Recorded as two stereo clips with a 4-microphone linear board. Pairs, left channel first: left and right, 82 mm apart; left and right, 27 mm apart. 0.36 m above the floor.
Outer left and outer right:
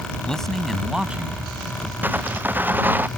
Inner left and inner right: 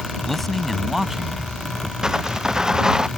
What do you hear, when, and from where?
0.3 s a man speaking: 10° left (ahead or behind); by 1.9 s 30° right (ahead or behind)
2.0 s sawing: 25° right (ahead or behind)